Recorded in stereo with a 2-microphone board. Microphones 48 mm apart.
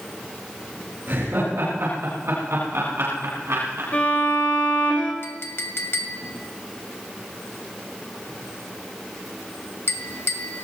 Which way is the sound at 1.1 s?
55° right (ahead or behind).